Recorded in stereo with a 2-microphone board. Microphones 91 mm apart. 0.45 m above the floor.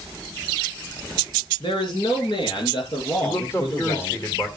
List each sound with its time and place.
1.6 s a man speaking: 65° left (ahead or behind), 5.5 m; by 4.2 s 60° left (ahead or behind), 8.5 m
3.2 s a man speaking: 35° left (ahead or behind), 1.8 m